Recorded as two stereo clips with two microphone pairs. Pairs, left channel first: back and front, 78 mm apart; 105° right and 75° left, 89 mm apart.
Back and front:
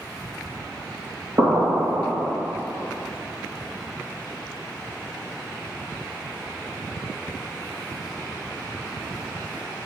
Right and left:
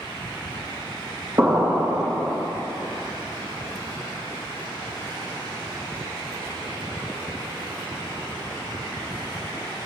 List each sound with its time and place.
1.4 s an explosion: 30° left, 2.5 m